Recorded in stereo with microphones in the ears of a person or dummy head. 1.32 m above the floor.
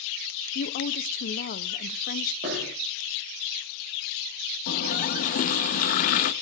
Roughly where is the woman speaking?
Left.